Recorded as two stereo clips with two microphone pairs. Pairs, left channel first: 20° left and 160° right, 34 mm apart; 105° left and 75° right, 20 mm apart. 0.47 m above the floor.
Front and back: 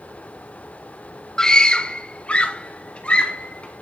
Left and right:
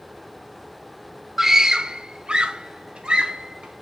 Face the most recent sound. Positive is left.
turn(degrees=-35)